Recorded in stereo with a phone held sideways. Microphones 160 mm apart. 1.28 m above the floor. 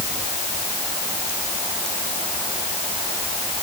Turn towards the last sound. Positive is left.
No sound to turn to.